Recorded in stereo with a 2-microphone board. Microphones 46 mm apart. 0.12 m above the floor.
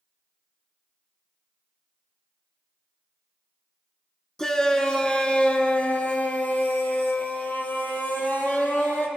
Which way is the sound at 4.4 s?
10° left (ahead or behind).